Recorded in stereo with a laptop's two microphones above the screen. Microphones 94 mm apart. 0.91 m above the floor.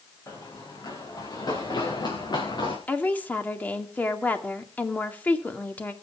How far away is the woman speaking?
About 2.5 m.